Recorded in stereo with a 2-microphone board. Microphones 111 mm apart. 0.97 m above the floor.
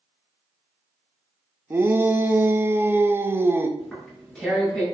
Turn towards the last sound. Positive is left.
turn(degrees=5)  # may be behind; listen again after turning